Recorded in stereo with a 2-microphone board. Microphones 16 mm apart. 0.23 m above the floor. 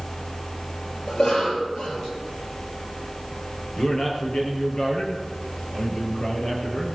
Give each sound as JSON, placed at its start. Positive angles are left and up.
{"t": 1.1, "sound": "a cough", "side_deg": 60, "distance_m": 5.5}
{"t": 3.8, "sound": "a man speaking", "side_deg": 40, "distance_m": 5.0}